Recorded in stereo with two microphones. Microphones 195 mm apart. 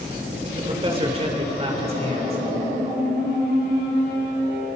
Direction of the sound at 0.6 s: 30° right (ahead or behind).